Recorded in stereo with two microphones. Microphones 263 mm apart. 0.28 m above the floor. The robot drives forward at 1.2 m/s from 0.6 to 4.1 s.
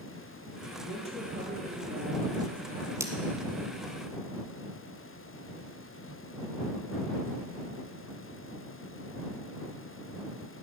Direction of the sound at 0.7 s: 25° right (ahead or behind).